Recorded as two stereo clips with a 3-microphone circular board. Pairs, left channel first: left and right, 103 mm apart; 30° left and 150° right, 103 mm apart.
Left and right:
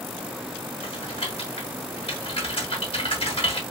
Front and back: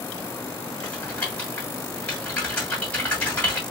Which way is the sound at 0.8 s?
105° left.